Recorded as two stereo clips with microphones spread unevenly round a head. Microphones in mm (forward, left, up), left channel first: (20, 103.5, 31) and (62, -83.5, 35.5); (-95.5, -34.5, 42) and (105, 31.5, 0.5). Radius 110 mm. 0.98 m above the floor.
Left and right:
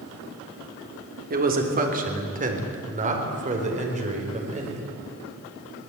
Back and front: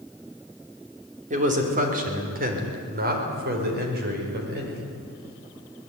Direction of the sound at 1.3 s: 35° right.